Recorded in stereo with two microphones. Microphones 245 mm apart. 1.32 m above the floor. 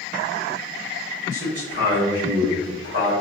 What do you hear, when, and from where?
1.3 s a man speaking: 50° right (ahead or behind), 1.9 m